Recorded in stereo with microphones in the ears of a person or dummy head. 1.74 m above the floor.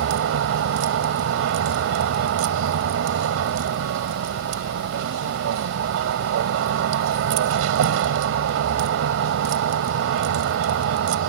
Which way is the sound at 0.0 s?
75° right (ahead or behind).